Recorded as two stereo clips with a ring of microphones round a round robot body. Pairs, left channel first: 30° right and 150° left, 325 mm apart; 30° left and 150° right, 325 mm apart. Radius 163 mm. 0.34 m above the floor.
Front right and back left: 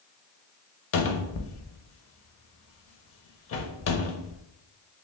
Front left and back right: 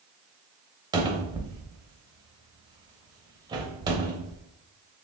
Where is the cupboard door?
75° right, 0.6 m.